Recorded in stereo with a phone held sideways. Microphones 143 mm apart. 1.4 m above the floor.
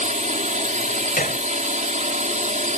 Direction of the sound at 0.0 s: 60° right (ahead or behind).